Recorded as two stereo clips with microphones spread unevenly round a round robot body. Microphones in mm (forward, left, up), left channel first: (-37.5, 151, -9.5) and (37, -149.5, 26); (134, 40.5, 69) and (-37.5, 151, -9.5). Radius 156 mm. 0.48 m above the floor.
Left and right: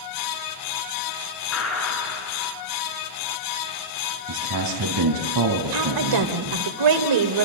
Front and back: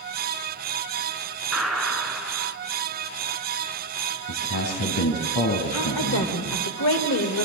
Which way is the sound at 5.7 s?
75° right.